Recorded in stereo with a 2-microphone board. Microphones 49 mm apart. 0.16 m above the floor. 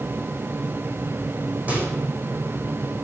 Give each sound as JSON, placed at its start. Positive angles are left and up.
{"t": 1.7, "sound": "a microwave", "side_deg": -35, "distance_m": 6.0}